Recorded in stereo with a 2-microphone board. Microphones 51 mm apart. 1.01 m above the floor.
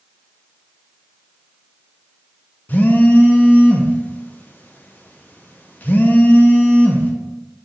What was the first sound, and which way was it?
A phone buzzing, 35° left (ahead or behind).